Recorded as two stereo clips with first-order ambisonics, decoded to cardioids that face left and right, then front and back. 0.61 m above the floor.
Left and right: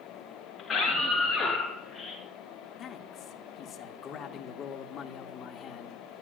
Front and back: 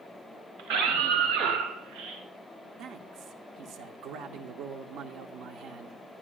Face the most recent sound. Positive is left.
turn(degrees=145)